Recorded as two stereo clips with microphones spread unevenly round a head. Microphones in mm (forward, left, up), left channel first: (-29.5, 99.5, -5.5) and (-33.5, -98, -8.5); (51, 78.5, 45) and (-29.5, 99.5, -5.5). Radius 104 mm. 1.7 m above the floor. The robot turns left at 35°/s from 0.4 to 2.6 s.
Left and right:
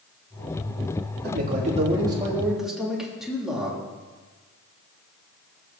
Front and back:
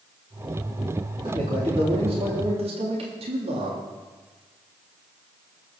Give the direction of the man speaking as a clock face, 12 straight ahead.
4 o'clock.